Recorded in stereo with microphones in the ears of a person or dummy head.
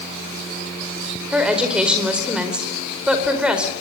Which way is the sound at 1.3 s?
5° right (ahead or behind).